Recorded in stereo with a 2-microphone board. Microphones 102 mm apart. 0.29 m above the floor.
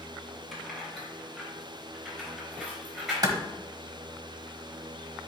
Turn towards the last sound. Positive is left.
turn(degrees=-40)  # may be behind; listen again after turning